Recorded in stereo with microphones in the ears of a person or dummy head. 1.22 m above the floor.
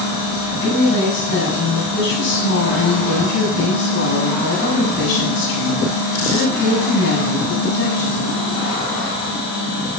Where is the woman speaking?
75° left (ahead or behind), 6.5 m.